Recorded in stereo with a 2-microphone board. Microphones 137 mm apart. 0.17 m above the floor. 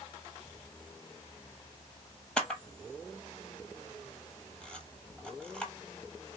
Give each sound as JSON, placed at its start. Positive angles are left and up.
{"t": 2.4, "sound": "a camera shutter", "side_deg": 5, "distance_m": 0.7}